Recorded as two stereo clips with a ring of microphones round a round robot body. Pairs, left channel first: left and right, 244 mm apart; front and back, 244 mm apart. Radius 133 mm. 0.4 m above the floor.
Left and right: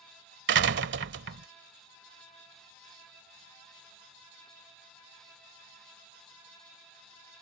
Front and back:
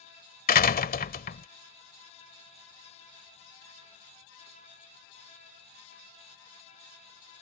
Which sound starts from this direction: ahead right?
A door slam, at 0.5 s.